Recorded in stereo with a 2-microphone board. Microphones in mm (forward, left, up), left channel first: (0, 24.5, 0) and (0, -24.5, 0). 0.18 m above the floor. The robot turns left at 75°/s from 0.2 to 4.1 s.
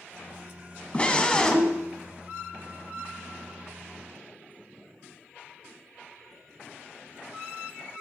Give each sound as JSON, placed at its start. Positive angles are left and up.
{"t": 0.9, "sound": "a scream", "side_deg": 25, "distance_m": 1.0}